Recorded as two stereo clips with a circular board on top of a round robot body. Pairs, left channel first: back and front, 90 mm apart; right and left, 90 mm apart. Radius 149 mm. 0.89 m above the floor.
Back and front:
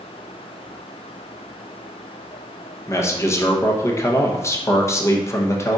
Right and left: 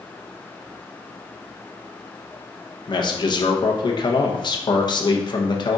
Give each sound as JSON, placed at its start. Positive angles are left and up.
{"t": 2.9, "sound": "a man speaking", "azimuth_deg": -125, "distance_m": 0.9}